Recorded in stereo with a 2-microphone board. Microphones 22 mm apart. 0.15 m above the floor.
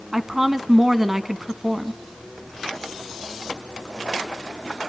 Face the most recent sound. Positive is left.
turn(degrees=-15)  # may be behind; listen again after turning